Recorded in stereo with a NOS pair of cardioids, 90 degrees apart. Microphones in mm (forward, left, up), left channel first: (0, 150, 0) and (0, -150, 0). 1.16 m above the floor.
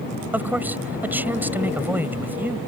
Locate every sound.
0.3 s a man speaking: 5° right